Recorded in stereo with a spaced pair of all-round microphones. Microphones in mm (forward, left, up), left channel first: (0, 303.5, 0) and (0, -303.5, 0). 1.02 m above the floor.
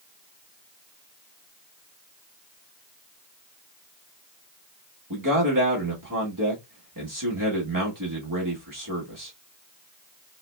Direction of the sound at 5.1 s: 30° right (ahead or behind).